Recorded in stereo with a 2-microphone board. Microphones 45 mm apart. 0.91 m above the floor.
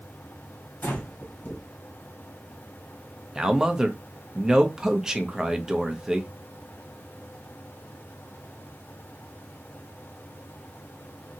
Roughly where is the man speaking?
Centre.